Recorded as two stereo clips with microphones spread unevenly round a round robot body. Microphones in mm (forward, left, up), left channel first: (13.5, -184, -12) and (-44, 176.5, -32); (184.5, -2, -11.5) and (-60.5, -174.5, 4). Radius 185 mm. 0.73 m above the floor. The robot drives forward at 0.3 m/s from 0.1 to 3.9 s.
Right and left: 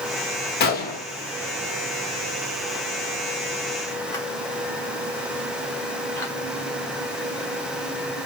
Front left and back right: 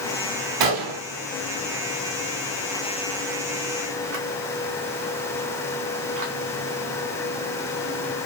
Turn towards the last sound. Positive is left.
turn(degrees=-165)